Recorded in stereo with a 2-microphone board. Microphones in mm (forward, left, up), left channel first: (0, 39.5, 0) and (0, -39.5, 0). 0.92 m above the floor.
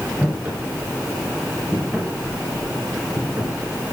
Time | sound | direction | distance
0.2 | footsteps | 15° right (ahead or behind) | 8 m